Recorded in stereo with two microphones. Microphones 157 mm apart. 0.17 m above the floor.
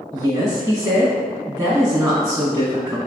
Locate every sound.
0.1 s a woman speaking: 15° right (ahead or behind), 1.3 m